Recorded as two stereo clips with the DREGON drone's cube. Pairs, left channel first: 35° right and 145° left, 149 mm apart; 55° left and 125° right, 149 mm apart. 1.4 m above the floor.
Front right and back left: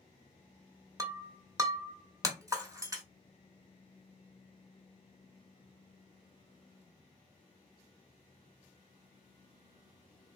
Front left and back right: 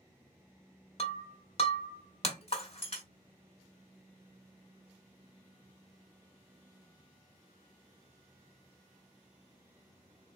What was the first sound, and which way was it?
Breaking glass, 85° left.